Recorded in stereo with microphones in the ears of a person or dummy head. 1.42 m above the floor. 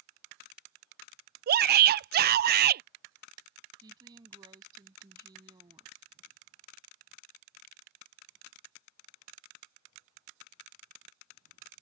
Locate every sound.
1.5 s a shout: 50° right (ahead or behind)
3.8 s a woman speaking: 25° right (ahead or behind)